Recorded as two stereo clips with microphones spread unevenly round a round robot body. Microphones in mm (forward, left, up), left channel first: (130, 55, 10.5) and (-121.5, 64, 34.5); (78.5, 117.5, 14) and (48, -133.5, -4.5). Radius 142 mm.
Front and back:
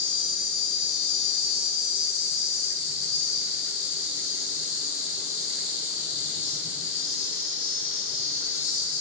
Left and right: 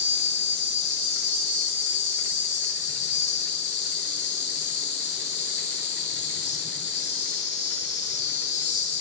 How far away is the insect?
About 2 m.